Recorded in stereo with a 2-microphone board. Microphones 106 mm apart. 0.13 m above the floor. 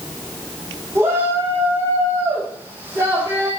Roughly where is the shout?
Right.